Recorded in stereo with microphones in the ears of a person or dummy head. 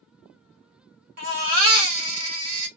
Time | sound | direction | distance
1.2 | a baby crying | 50° right (ahead or behind) | 1.2 m